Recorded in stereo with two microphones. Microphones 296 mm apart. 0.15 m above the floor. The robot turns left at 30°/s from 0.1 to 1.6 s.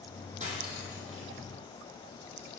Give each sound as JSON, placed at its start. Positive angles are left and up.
{"t": 0.4, "sound": "cutlery clinking", "side_deg": -25, "distance_m": 3.0}